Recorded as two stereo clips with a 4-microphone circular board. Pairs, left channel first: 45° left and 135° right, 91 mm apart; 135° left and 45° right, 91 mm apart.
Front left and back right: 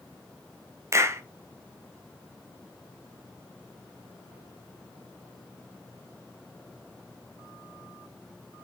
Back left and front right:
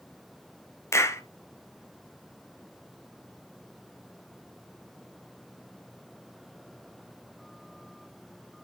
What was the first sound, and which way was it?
A clap, straight behind.